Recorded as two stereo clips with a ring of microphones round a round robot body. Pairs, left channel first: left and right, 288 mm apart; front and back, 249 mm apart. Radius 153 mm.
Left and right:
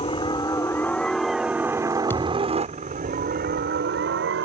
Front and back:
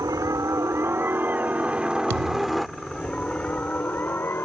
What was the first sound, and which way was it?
A helicopter, 125° left.